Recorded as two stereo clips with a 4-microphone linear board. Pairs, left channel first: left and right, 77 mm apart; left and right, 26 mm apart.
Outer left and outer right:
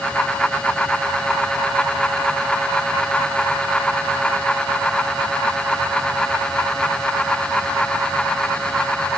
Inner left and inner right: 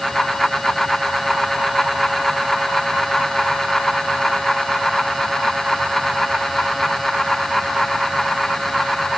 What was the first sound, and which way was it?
Only background noise.